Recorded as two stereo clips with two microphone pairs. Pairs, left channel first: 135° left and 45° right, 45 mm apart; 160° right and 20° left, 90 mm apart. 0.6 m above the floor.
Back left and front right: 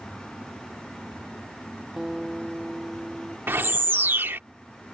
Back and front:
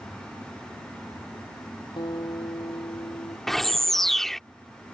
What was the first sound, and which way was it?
A guitar, 130° right.